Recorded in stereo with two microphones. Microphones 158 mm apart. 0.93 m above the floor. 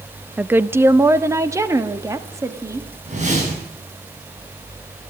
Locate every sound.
0.4 s a woman speaking: 10° right (ahead or behind), 0.5 m; by 2.9 s 20° right (ahead or behind), 2 m
3.0 s a whoosh: 45° right (ahead or behind), 8 m